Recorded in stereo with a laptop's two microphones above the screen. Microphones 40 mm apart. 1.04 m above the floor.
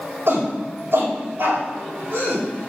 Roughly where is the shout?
Right.